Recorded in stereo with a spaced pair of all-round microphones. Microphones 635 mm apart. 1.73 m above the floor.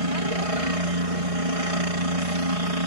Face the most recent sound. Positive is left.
turn(degrees=-65)  # may be behind; listen again after turning